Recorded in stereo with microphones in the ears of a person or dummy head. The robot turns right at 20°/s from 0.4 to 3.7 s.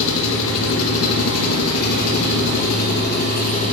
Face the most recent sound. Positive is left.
turn(degrees=140)